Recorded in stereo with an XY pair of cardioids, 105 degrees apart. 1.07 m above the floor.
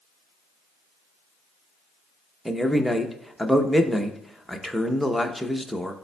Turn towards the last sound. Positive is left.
turn(degrees=0)